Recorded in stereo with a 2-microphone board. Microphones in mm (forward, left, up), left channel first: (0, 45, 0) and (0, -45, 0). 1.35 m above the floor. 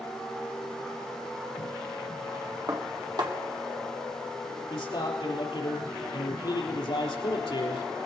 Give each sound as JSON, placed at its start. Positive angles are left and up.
{"t": 2.7, "sound": "dishes clattering", "side_deg": -50, "distance_m": 1.6}
{"t": 4.7, "sound": "a man speaking", "side_deg": 80, "distance_m": 4.0}